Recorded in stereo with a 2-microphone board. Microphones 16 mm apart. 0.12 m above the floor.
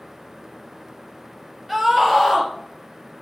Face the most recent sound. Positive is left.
turn(degrees=-15)  # may be behind; listen again after turning